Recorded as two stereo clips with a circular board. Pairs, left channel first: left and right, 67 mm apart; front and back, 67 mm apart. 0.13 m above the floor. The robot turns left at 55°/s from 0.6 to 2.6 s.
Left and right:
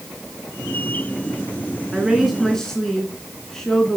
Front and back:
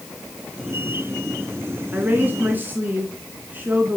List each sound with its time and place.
1.9 s a woman speaking: 160° right, 1.5 m; by 4.0 s 165° left, 1.5 m